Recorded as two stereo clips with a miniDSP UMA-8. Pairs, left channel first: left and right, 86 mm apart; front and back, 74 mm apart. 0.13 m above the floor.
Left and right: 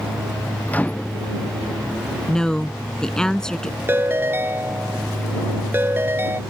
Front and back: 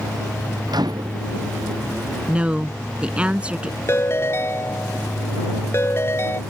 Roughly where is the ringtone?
Ahead right.